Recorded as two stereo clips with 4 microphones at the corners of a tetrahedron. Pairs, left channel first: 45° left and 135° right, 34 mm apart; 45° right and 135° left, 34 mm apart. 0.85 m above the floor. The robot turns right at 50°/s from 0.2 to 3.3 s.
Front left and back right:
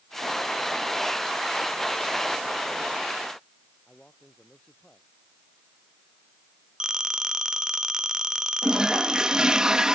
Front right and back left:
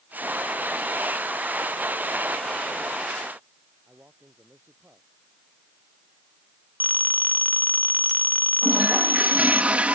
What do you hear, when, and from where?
3.9 s a man speaking: 115° left
6.8 s a phone ringing: 150° left
8.6 s a toilet flushing: 160° left